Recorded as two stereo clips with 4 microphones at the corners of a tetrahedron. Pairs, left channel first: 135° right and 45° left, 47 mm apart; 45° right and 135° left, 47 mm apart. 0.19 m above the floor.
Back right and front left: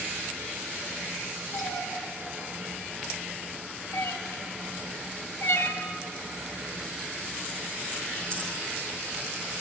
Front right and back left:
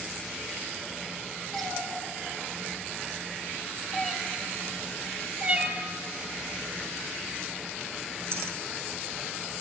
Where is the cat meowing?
120° right, 3 m; by 8.7 s 150° left, 2 m.